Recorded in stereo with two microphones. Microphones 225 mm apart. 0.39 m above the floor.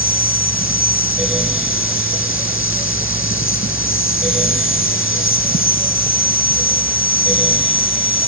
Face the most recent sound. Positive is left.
turn(degrees=65)  # may be behind; listen again after turning